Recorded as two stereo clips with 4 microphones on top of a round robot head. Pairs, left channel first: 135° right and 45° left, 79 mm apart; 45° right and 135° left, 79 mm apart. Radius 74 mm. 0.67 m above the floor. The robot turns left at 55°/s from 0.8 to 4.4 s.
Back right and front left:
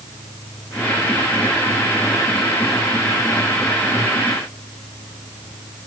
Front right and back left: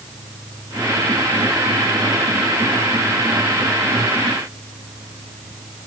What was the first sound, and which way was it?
Only background noise.